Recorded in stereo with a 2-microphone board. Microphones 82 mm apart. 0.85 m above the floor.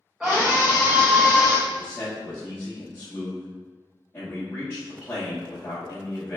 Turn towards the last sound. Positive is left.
turn(degrees=30)  # may be behind; listen again after turning